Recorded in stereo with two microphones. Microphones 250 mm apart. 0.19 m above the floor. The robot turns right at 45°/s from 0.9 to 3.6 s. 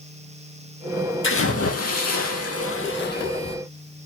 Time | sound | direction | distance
1.2 | a splash | 55° left | 0.9 m